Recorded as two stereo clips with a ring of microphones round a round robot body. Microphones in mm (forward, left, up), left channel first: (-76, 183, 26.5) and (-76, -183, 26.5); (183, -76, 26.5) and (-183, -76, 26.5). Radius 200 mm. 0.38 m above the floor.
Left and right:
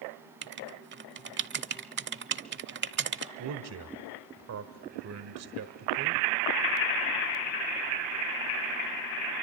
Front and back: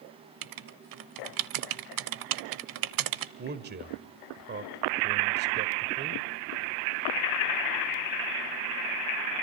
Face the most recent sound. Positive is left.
turn(degrees=-125)